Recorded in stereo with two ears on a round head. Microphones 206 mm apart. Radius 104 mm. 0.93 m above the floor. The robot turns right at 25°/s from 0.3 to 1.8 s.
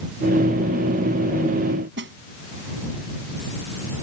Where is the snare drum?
55° right (ahead or behind).